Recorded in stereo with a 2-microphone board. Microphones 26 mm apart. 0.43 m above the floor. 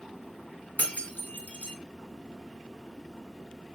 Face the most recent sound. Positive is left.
turn(degrees=75)  # may be behind; listen again after turning